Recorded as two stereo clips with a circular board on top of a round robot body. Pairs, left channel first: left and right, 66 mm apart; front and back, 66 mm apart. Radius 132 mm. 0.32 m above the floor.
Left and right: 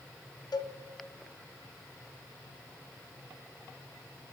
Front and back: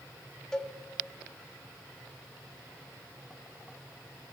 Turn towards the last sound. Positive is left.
turn(degrees=80)